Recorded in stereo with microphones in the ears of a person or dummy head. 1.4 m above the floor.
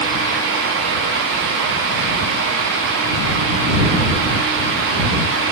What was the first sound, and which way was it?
Only background noise.